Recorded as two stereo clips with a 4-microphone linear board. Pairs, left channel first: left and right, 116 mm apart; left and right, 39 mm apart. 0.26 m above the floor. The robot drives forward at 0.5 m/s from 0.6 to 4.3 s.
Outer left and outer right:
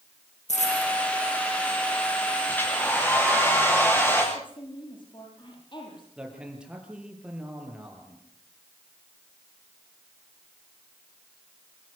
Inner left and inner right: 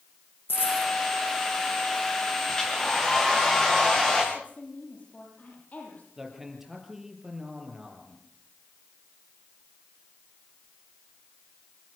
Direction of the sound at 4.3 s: 45° left (ahead or behind).